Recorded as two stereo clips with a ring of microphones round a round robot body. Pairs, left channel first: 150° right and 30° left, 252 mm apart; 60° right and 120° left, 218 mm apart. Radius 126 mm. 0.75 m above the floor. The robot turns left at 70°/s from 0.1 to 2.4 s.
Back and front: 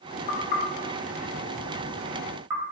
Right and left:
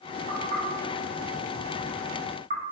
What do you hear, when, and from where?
0.3 s knocking: 105° right, 0.7 m; by 2.6 s 105° left, 0.7 m